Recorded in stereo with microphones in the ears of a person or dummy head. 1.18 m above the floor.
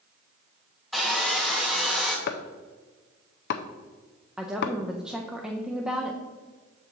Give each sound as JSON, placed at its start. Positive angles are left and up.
{"t": 0.9, "sound": "sawing", "side_deg": 0, "distance_m": 0.9}
{"t": 2.3, "sound": "chopping", "side_deg": 60, "distance_m": 0.6}
{"t": 4.4, "sound": "a woman speaking", "side_deg": 0, "distance_m": 0.5}